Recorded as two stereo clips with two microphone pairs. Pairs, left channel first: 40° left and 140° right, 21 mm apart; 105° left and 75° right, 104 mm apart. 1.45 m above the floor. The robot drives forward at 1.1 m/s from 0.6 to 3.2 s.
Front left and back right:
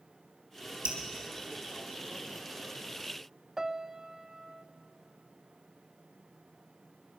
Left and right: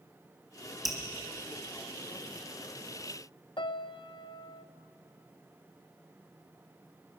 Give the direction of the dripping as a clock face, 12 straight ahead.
5 o'clock.